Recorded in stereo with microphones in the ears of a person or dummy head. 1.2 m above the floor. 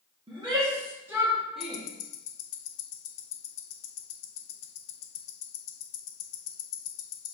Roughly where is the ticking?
Left.